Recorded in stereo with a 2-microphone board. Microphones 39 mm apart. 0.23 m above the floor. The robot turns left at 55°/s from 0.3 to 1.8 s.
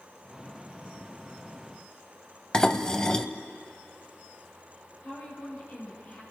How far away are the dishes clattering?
About 0.7 m.